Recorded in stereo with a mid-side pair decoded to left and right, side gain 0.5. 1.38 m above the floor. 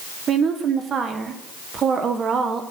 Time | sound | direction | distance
0.3 | a woman speaking | 50° right | 1.0 m